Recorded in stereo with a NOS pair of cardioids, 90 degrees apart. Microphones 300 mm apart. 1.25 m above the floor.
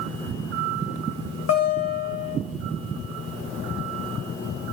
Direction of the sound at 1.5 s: 55° left.